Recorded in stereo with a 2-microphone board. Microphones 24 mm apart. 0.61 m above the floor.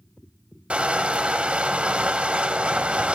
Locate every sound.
0.7 s crushing: 55° right (ahead or behind), 0.7 m